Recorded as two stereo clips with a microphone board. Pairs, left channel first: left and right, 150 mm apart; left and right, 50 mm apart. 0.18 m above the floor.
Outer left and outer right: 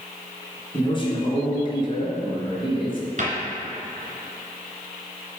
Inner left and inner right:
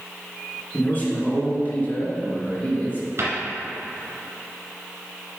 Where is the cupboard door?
55° right (ahead or behind), 1.8 m.